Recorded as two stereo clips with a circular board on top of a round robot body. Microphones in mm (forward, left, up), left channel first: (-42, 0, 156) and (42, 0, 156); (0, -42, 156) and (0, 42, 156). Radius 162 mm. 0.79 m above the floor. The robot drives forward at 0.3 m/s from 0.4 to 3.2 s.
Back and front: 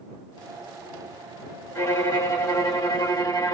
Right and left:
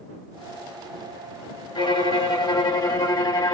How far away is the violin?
About 1.7 m.